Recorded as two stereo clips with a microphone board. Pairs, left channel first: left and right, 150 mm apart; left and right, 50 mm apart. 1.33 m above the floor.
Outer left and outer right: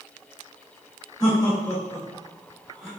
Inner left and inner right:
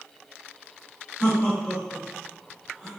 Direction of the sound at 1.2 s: 25° left (ahead or behind).